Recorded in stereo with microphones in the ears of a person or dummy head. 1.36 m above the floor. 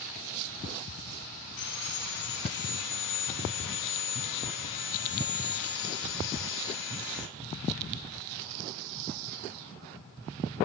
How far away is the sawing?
About 1.2 m.